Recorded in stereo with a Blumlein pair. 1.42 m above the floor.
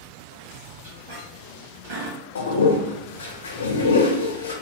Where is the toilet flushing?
70° left, 0.8 m.